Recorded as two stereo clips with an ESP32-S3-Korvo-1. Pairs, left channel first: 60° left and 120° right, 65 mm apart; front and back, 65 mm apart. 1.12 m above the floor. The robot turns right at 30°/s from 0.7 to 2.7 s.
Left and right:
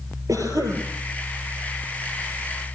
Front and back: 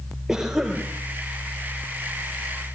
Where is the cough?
95° right, 4 m; by 0.8 s 90° right, 4 m.